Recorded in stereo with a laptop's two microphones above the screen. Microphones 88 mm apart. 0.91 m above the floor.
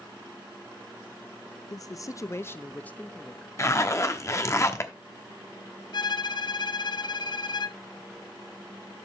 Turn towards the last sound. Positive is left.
turn(degrees=55)  # may be behind; listen again after turning